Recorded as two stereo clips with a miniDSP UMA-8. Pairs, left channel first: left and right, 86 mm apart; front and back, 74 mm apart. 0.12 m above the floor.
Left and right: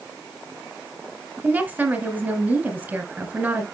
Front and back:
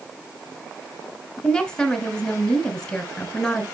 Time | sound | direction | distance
1.4 | a woman speaking | 65° right | 1.6 m